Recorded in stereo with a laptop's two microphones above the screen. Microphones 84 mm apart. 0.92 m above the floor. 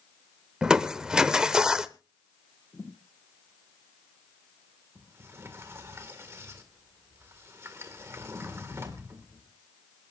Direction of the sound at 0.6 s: 10° right (ahead or behind).